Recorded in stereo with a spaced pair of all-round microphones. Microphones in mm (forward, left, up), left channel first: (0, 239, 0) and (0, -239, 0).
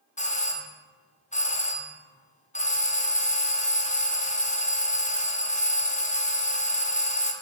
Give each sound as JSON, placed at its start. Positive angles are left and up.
{"t": 0.2, "sound": "a doorbell", "side_deg": 15, "distance_m": 0.5}